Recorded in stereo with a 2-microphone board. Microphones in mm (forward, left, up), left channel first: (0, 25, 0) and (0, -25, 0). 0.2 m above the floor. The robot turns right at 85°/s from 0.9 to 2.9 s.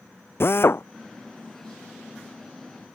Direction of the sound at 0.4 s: 50° left (ahead or behind).